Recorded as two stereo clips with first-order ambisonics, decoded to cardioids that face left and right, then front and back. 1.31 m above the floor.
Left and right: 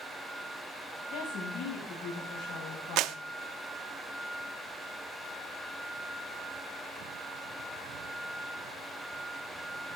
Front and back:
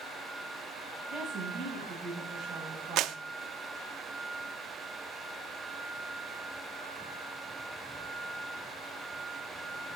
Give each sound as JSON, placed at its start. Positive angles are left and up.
{"t": 1.1, "sound": "a woman speaking", "azimuth_deg": 90, "distance_m": 9.0}
{"t": 3.0, "sound": "a clap", "azimuth_deg": -135, "distance_m": 0.7}